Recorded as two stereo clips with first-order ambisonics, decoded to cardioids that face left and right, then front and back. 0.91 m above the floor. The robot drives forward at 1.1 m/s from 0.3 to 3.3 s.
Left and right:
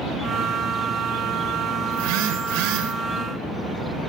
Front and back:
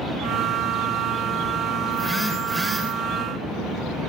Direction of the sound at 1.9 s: 85° right.